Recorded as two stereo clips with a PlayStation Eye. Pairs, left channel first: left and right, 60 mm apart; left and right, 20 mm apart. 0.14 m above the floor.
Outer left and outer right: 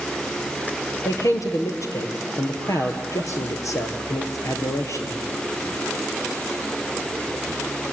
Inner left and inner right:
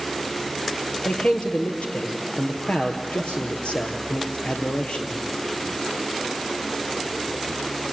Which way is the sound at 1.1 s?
65° left (ahead or behind).